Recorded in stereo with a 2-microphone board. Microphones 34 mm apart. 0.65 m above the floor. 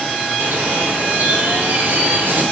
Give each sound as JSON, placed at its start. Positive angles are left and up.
{"t": 0.4, "sound": "a bird", "side_deg": -70, "distance_m": 1.4}